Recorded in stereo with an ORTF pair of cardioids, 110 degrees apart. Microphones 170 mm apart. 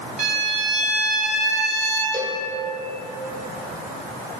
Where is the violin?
45° right, 1.3 m.